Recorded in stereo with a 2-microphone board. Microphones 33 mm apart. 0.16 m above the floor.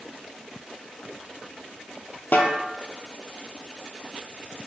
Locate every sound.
2.3 s a snare drum: 75° left (ahead or behind), 0.7 m